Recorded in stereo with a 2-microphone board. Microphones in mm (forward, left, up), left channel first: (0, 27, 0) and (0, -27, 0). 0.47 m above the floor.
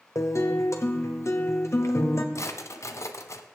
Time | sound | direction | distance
0.1 | a guitar | 65° left (ahead or behind) | 1.5 m
2.4 | a drawer | 65° left (ahead or behind) | 1.0 m